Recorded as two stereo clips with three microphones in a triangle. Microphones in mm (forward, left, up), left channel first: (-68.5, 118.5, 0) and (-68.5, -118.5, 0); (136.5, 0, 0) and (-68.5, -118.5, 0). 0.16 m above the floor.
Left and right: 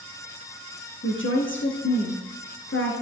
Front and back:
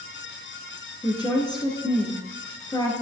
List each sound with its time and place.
1.0 s a woman speaking: 100° left, 2 m